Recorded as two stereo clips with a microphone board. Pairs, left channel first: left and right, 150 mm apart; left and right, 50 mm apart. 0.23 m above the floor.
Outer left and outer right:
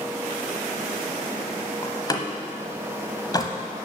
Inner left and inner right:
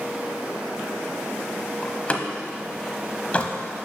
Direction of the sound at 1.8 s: 25° left (ahead or behind).